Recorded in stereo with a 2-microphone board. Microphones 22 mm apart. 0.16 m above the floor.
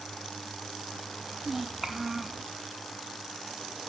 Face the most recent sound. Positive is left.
turn(degrees=-15)  # may be behind; listen again after turning